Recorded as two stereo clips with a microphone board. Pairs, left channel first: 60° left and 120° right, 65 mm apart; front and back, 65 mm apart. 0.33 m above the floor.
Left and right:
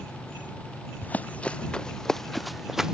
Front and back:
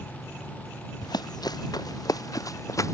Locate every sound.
1.0 s running footsteps: 5° right; by 3.0 s 40° right